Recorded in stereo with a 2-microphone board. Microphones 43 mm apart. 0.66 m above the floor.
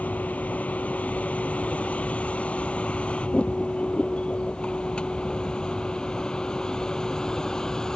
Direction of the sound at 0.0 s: 35° left (ahead or behind).